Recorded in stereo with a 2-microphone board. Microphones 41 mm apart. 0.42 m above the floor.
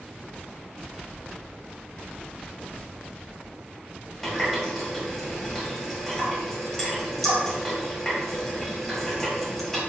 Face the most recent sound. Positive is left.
turn(degrees=5)  # may be behind; listen again after turning